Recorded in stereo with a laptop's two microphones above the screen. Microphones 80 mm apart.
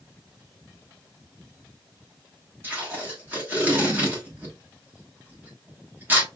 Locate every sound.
2.6 s tape being pulled: 25° right (ahead or behind), 1.2 m